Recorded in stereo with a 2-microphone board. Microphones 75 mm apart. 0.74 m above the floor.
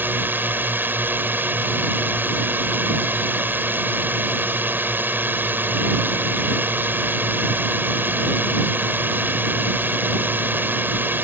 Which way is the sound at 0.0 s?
25° right (ahead or behind).